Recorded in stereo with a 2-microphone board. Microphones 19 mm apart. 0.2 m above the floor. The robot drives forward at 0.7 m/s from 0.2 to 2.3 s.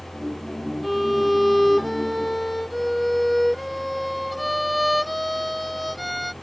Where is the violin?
Centre (ahead or behind).